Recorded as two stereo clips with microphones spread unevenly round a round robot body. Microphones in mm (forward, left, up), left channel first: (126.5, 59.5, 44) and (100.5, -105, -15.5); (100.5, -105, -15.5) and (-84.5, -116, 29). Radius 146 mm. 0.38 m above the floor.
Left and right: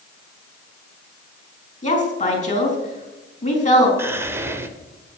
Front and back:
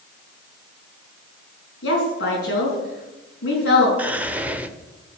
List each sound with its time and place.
1.8 s a woman speaking: 30° left, 4.5 m
4.0 s whispering: 80° right, 1.3 m